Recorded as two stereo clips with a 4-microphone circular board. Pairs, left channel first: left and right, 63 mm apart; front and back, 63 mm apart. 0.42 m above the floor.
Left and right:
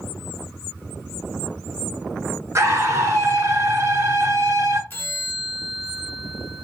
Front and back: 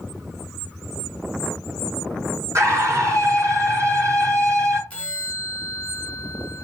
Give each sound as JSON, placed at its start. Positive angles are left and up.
{"t": 2.5, "sound": "a scream", "azimuth_deg": -140, "distance_m": 5.0}
{"t": 4.9, "sound": "a bell", "azimuth_deg": 55, "distance_m": 1.5}